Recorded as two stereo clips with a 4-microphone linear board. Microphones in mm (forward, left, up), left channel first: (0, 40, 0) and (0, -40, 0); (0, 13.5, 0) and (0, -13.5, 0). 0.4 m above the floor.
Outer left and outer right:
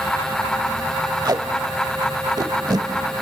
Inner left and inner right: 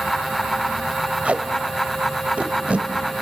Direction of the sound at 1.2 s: 60° right (ahead or behind).